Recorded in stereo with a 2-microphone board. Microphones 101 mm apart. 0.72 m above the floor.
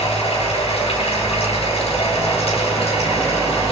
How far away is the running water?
About 6.5 m.